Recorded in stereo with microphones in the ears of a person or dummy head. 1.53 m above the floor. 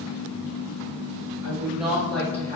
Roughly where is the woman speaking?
Centre.